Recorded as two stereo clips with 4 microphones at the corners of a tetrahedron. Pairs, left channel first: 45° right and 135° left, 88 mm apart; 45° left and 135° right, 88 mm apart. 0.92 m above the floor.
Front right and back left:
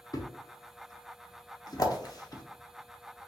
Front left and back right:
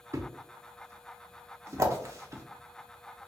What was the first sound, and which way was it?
A thud, 85° right.